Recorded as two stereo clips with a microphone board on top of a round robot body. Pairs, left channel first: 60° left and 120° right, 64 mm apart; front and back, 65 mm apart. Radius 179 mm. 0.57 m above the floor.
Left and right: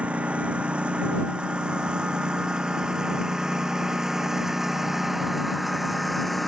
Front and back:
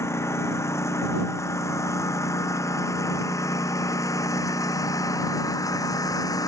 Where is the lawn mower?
50° right; by 6.5 s 30° right.